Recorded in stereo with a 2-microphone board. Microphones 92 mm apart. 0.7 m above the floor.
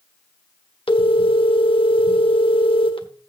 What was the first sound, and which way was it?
A phone ringing, 80° left.